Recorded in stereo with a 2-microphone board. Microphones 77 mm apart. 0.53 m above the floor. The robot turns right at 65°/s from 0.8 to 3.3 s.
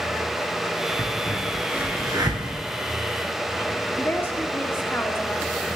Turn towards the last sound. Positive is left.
turn(degrees=30)  # may be behind; listen again after turning